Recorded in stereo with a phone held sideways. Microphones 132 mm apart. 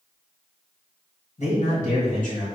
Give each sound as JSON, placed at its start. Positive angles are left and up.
{"t": 1.4, "sound": "a man speaking", "side_deg": 60, "distance_m": 1.8}